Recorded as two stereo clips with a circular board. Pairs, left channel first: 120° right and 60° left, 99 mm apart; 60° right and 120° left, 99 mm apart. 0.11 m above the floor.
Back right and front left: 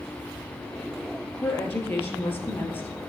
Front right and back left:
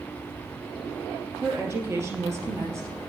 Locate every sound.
1.4 s a woman speaking: 175° left, 2 m